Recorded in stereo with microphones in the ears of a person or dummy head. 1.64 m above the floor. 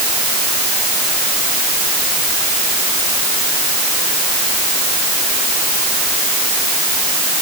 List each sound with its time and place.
Only background noise.